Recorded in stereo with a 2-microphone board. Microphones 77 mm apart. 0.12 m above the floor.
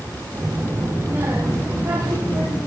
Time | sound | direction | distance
0.3 | a child speaking | 35° right (ahead or behind) | 1.7 m